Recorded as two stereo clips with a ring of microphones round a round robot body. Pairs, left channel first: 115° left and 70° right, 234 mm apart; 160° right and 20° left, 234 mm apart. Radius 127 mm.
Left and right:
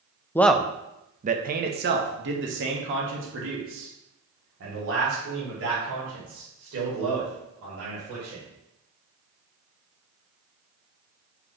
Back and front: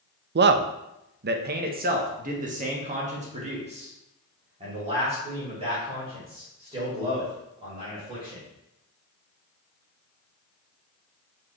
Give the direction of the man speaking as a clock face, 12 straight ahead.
11 o'clock.